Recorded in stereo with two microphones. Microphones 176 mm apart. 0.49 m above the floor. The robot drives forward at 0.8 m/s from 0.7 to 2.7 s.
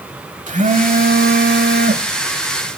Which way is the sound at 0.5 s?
45° right (ahead or behind).